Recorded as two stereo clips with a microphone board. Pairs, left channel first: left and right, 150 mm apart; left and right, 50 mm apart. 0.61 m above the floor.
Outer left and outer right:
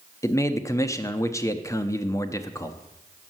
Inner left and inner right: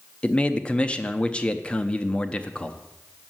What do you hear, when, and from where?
0.2 s a man speaking: 20° left (ahead or behind), 0.5 m